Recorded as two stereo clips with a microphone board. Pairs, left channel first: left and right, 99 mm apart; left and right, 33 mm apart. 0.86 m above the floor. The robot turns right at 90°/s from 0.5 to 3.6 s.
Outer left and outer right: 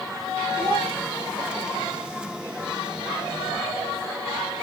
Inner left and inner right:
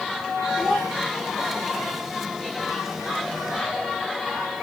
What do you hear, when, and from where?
0.6 s a child speaking: 5° right, 3.5 m; by 0.9 s 25° left, 3.5 m